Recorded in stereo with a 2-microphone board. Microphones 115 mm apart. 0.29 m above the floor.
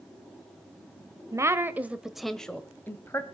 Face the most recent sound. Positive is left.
turn(degrees=25)  # may be behind; listen again after turning